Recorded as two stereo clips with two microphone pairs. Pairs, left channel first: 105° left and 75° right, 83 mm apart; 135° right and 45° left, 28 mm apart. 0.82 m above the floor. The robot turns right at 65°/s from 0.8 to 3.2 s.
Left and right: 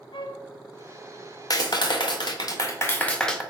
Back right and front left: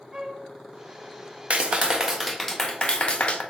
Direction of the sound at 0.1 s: 105° left.